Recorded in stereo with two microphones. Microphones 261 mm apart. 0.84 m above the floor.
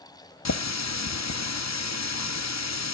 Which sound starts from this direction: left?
A running tap, at 0.5 s.